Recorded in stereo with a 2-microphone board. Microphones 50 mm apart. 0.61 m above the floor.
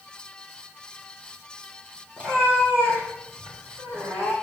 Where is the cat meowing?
30° right (ahead or behind), 3 m; by 4.3 s 50° right (ahead or behind), 3 m.